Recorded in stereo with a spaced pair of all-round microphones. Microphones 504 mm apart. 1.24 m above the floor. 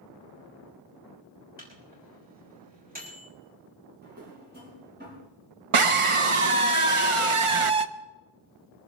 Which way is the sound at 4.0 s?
20° right (ahead or behind).